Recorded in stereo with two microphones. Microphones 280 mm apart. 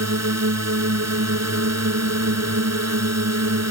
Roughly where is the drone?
Right.